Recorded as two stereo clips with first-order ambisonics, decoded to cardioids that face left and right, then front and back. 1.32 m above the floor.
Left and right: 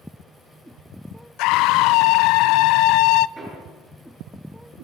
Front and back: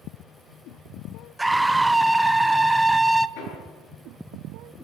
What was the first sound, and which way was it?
A scream, 95° left.